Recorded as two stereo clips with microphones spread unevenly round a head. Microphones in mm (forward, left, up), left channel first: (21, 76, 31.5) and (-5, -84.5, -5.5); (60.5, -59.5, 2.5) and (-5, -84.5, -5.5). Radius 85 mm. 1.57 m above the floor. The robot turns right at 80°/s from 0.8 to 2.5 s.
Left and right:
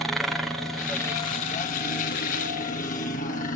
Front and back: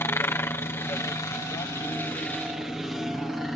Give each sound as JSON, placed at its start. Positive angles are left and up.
{"t": 0.0, "sound": "a helicopter", "azimuth_deg": -20}